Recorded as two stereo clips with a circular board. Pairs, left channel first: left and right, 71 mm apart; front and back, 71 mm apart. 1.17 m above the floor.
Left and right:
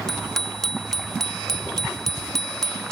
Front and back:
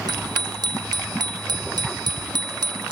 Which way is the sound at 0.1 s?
175° left.